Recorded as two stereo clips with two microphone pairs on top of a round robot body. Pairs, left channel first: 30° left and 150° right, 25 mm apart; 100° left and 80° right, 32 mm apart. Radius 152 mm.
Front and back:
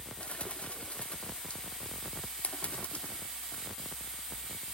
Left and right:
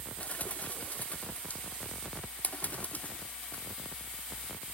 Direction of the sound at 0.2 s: 60° left.